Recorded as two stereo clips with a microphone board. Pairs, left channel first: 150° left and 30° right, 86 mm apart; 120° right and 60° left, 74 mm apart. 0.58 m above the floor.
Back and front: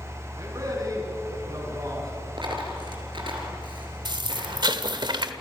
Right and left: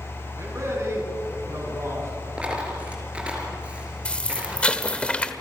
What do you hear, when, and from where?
0.4 s a man speaking: 15° left, 6.5 m
2.4 s a dropped coin: 15° right, 4.5 m
4.0 s an explosion: 45° right, 1.2 m